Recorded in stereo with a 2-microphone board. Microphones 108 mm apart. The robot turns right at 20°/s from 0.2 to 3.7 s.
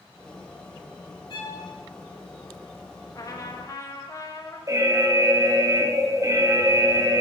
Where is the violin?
50° left (ahead or behind), 2 m; by 1.6 s 40° left (ahead or behind), 2 m.